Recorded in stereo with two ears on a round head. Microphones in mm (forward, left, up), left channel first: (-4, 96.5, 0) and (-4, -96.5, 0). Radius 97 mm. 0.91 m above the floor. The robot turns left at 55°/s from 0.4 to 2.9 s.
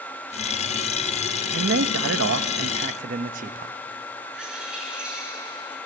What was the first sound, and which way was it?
A man speaking, 60° right.